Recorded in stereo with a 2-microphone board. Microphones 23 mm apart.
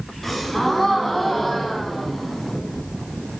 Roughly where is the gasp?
Centre.